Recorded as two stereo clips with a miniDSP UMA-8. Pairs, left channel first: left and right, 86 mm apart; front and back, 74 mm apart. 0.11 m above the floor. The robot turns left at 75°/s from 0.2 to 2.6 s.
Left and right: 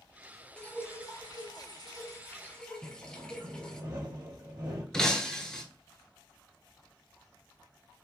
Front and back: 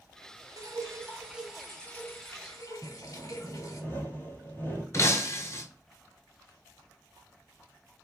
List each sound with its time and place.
0.6 s dripping: 165° left, 0.8 m; by 3.8 s 15° left, 0.8 m
2.8 s sawing: 55° right, 1.8 m
4.9 s breaking glass: 15° left, 0.8 m